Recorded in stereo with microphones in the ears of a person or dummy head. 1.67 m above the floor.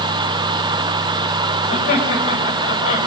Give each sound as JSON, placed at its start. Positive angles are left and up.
{"t": 1.7, "sound": "laughter", "side_deg": 40, "distance_m": 9.0}